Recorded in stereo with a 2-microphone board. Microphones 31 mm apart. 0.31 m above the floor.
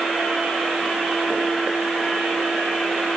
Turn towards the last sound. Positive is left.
No sound to turn to.